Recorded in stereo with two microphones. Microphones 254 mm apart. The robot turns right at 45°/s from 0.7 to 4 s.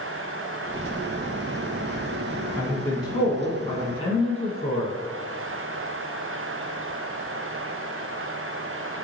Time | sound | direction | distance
2.6 | a man speaking | 5° left (ahead or behind) | 1.1 m